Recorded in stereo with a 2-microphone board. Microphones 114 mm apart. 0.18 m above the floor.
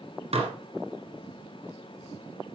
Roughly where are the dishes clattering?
Right.